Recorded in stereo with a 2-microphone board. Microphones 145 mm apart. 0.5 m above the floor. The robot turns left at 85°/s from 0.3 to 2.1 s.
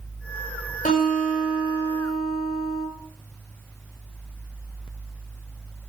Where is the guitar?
105° left, 9.5 m; by 2.9 s straight ahead, 9.5 m.